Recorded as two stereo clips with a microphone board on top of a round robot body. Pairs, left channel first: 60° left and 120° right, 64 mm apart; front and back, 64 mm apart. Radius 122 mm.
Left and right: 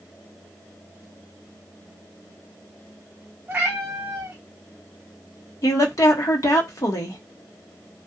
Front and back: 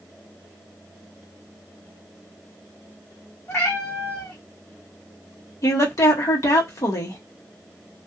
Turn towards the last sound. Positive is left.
turn(degrees=30)